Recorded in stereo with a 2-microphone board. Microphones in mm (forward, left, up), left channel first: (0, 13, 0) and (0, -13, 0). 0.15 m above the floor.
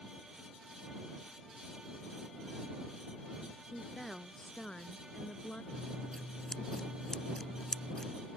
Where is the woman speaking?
5° left (ahead or behind); by 5.6 s 50° left (ahead or behind).